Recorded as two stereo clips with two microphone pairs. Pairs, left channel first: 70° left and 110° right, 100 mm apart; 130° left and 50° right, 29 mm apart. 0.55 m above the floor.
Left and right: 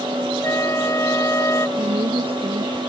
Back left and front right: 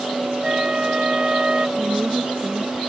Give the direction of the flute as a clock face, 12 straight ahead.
12 o'clock.